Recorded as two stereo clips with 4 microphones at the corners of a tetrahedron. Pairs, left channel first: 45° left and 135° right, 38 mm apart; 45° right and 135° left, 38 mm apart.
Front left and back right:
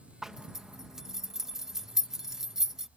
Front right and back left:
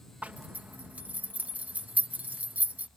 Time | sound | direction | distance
0.2 | a zipper | 150° left | ?